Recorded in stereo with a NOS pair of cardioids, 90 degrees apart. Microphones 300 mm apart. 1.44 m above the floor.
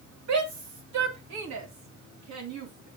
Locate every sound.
0.3 s a shout: 65° right, 2.5 m; by 2.9 s 70° right, 4 m